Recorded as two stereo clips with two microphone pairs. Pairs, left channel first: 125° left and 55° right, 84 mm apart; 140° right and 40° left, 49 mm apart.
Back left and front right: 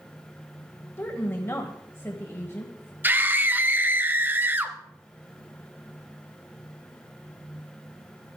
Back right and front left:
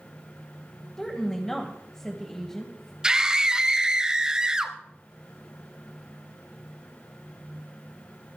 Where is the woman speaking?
145° left, 1.8 m.